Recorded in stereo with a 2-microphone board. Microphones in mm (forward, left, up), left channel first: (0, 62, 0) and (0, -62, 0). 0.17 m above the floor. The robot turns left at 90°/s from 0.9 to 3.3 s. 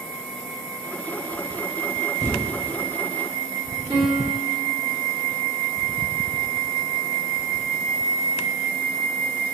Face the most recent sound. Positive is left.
turn(degrees=-30)  # may be behind; listen again after turning